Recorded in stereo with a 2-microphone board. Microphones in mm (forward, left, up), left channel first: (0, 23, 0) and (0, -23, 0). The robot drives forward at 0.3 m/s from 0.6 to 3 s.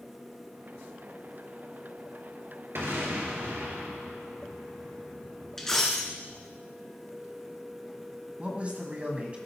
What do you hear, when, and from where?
2.8 s an explosion: 70° right (ahead or behind), 2.5 m
5.6 s a dropped coin: 10° left (ahead or behind), 1.5 m
8.4 s a man speaking: 30° right (ahead or behind), 1.6 m